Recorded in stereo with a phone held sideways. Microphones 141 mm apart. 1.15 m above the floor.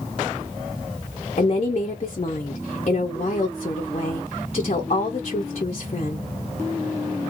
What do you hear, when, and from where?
1.4 s a woman speaking: 50° left (ahead or behind), 0.6 m